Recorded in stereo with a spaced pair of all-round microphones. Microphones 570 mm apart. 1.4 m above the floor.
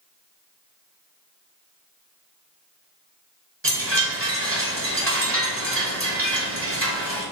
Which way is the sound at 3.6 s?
25° right (ahead or behind).